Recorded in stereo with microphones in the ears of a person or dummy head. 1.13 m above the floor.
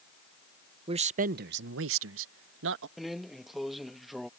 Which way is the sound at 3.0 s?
Centre (ahead or behind).